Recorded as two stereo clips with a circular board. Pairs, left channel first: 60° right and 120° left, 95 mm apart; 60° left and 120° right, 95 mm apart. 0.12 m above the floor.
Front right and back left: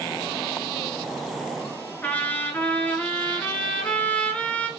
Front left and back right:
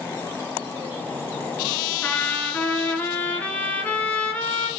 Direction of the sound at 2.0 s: Straight ahead.